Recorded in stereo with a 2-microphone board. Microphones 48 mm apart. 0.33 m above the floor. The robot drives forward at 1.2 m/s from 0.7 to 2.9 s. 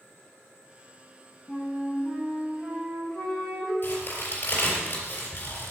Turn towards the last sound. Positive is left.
turn(degrees=45)  # may be behind; listen again after turning